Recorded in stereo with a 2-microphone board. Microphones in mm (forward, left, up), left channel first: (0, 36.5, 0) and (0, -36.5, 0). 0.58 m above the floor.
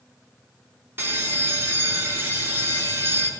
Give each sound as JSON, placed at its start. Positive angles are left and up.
{"t": 1.0, "sound": "a bell", "side_deg": -30, "distance_m": 0.9}